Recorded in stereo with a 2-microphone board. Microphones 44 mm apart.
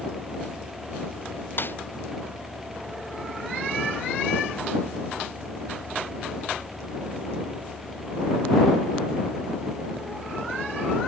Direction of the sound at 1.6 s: 50° left (ahead or behind).